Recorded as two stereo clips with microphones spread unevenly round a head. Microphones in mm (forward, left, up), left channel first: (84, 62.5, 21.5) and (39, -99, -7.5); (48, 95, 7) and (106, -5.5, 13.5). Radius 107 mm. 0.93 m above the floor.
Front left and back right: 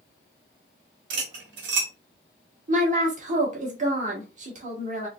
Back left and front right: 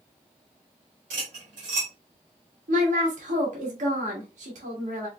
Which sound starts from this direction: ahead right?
A woman speaking, at 2.7 s.